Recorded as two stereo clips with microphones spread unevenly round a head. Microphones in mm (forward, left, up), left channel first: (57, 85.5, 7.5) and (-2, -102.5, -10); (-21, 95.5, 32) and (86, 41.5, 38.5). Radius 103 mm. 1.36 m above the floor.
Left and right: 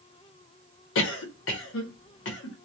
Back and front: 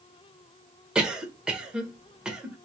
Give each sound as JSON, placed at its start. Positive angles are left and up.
{"t": 0.9, "sound": "a cough", "azimuth_deg": 55, "distance_m": 0.8}